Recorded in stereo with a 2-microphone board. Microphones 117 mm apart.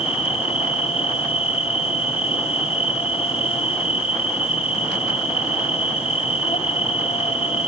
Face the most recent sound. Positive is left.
turn(degrees=60)  # may be behind; listen again after turning